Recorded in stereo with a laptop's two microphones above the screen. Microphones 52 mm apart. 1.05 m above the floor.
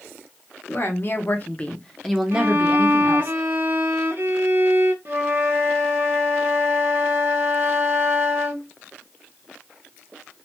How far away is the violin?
About 0.6 m.